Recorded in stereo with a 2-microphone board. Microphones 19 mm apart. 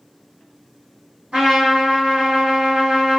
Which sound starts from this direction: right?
A trumpet, at 1.3 s.